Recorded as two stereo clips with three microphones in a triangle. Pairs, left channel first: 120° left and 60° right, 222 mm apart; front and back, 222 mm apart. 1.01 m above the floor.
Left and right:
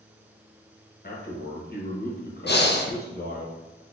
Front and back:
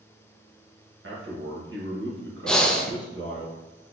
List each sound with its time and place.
1.0 s a man speaking: 160° left, 1.5 m
2.5 s breathing: 85° left, 0.6 m